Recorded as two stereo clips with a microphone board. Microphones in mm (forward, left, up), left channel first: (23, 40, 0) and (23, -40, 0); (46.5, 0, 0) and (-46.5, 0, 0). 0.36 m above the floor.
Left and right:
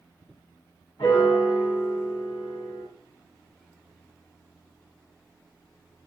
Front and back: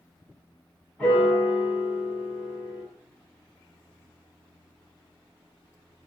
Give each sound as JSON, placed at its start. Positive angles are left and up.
{"t": 1.0, "sound": "a piano", "azimuth_deg": 80, "distance_m": 2.5}